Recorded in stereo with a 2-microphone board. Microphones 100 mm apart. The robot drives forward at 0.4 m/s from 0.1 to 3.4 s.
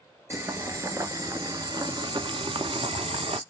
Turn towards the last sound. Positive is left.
turn(degrees=-70)  # may be behind; listen again after turning